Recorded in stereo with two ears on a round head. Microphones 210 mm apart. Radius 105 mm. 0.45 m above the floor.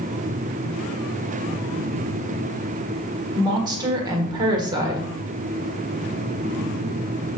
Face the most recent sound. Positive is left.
turn(degrees=-20)  # may be behind; listen again after turning